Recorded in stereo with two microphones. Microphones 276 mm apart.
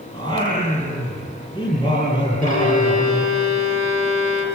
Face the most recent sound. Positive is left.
turn(degrees=80)